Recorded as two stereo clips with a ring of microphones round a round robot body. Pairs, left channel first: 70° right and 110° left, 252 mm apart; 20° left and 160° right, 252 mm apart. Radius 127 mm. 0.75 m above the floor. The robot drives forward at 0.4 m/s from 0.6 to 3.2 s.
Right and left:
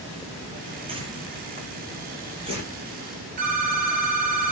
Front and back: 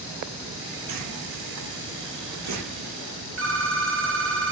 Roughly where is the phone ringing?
Behind.